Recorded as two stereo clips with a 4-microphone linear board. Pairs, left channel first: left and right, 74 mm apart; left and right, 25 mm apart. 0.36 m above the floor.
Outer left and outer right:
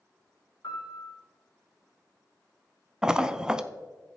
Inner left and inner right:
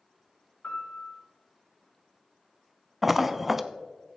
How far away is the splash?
About 0.5 m.